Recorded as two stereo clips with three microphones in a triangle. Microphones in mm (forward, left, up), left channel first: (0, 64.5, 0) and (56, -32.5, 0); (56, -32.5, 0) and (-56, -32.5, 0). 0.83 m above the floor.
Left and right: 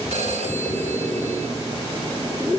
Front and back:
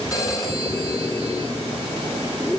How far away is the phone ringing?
About 7.5 m.